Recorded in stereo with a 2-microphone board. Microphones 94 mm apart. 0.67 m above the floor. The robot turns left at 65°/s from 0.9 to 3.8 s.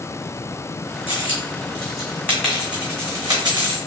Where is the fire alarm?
No fire alarm in this recording.